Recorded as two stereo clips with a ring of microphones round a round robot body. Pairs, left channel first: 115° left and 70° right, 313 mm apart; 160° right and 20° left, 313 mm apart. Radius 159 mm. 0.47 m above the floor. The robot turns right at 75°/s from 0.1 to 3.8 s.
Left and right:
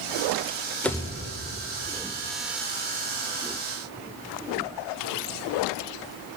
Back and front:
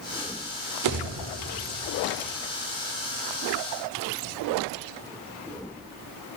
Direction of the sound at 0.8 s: 25° left.